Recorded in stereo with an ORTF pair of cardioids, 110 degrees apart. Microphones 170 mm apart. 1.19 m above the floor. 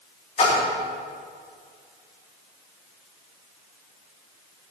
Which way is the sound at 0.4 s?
40° left.